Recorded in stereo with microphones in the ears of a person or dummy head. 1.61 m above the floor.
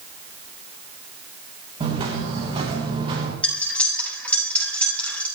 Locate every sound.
1.8 s footsteps: 30° right (ahead or behind), 4.5 m; by 3.3 s 25° right (ahead or behind), 5.5 m
3.4 s cutlery clinking: 10° left (ahead or behind), 6 m